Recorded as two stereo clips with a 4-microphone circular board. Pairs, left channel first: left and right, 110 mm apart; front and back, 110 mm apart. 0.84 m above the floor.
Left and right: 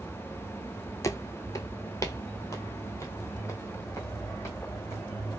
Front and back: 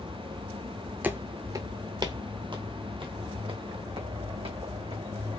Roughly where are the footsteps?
Behind left.